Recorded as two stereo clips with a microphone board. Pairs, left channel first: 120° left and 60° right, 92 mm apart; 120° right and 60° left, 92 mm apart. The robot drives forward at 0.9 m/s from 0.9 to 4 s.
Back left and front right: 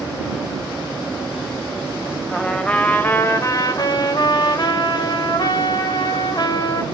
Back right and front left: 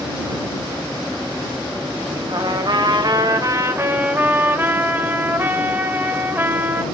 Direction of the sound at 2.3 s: 35° left.